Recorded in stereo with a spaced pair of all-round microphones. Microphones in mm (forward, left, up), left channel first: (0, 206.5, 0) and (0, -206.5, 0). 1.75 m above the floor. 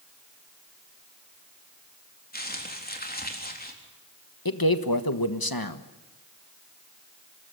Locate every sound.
2.3 s crumpling: 20° left (ahead or behind), 3.5 m
4.5 s a man speaking: 55° left (ahead or behind), 1.5 m